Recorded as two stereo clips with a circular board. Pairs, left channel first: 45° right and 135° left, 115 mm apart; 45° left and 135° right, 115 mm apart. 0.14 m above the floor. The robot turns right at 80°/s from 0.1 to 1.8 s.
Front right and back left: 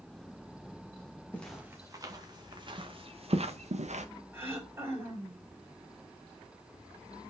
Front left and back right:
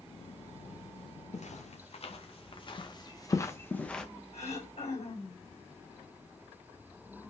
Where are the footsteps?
30° left, 3 m; by 4.0 s 130° left, 1.6 m.